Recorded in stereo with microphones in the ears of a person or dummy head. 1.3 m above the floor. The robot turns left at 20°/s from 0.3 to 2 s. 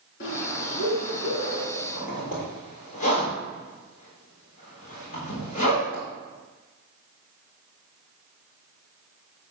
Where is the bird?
60° left (ahead or behind), 3.5 m; by 1.6 s 35° left (ahead or behind), 3.5 m.